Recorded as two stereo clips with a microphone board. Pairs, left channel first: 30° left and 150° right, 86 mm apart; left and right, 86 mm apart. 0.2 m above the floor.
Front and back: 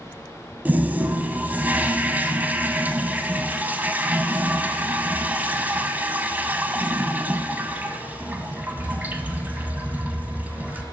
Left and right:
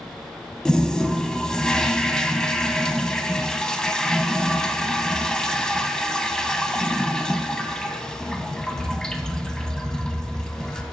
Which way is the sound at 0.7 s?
165° left.